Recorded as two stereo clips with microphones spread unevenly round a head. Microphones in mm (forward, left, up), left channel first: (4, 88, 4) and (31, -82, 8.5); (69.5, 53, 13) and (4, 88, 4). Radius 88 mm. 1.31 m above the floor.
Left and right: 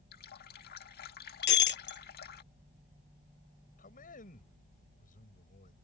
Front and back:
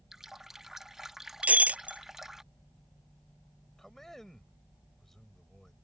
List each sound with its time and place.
0.1 s a running tap: 65° left
1.4 s breaking glass: 80° left
3.8 s a man speaking: 55° left